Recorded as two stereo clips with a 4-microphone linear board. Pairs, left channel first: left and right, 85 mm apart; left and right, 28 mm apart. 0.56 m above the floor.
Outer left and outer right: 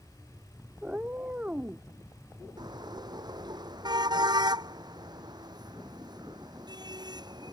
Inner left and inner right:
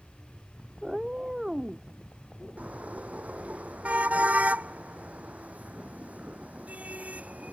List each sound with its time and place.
0.8 s a cat meowing: 20° right (ahead or behind)
2.6 s a car horn: 55° right (ahead or behind)